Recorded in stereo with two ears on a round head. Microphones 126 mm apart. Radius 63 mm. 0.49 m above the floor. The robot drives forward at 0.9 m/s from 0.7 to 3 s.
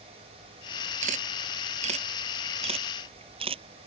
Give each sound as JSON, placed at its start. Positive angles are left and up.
{"t": 1.0, "sound": "a camera shutter", "side_deg": -60}